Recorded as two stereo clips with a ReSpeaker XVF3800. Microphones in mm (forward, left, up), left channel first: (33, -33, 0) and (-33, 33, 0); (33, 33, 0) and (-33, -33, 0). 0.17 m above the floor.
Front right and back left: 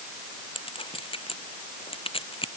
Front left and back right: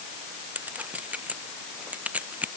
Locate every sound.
0.6 s a clink: 60° right